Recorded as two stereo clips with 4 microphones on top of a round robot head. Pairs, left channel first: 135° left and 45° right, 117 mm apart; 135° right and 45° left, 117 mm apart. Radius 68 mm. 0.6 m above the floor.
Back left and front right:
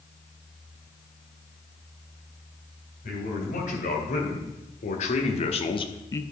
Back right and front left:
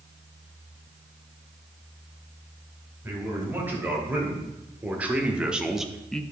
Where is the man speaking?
120° left, 3.5 m; by 6.2 s 155° left, 0.7 m.